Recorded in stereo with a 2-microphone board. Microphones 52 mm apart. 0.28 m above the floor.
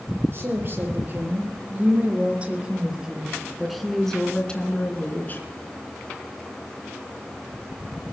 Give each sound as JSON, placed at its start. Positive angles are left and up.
{"t": 0.3, "sound": "a woman speaking", "side_deg": -45, "distance_m": 5.0}